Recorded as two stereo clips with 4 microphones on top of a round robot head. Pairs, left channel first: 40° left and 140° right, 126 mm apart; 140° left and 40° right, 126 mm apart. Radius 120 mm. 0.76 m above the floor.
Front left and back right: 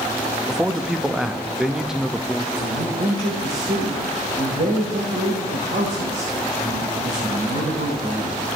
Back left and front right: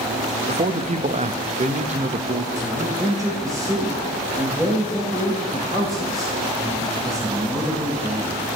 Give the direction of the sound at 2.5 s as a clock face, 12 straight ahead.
4 o'clock.